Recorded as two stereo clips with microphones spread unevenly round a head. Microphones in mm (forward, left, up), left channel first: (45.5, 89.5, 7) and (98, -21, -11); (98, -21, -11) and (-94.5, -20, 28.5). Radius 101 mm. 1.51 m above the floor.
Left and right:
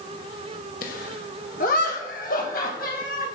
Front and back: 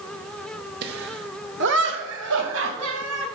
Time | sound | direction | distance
0.8 | laughter | 135° left | 1.5 m